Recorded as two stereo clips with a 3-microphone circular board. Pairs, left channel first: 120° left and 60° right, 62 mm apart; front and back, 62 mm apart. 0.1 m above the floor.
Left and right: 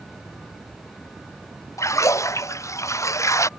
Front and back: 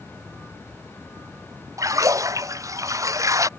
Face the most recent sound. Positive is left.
turn(degrees=155)